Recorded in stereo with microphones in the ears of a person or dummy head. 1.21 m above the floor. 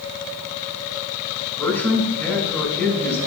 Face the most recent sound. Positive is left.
turn(degrees=5)  # may be behind; listen again after turning